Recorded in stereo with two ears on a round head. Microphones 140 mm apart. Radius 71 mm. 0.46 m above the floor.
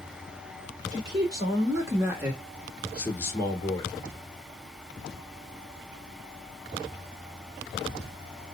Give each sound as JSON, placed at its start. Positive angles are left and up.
{"t": 0.9, "sound": "a man speaking", "side_deg": -25, "distance_m": 1.9}